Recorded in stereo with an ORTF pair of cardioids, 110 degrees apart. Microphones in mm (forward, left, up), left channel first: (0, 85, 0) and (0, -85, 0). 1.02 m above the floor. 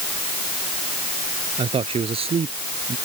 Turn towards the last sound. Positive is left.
turn(degrees=-40)